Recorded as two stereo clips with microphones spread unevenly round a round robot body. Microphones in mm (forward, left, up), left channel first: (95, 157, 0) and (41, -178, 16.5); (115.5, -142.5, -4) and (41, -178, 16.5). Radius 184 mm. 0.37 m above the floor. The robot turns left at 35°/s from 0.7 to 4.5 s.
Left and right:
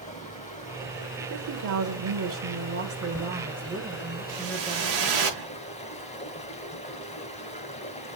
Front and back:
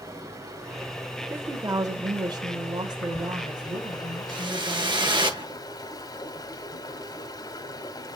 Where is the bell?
I don't hear a bell.